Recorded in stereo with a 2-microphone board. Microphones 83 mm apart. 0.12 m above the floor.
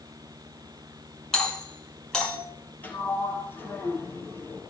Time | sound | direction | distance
1.3 | a doorbell | 5° left (ahead or behind) | 6 m
2.8 | a sliding door | 25° left (ahead or behind) | 3 m